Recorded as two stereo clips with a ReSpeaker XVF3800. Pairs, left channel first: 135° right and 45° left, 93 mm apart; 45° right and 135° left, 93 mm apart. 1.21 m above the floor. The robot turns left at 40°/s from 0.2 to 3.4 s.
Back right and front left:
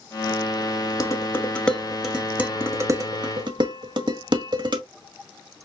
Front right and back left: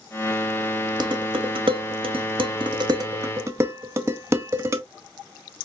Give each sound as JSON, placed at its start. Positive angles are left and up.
{"t": 1.0, "sound": "dishes clattering", "azimuth_deg": 170, "distance_m": 1.5}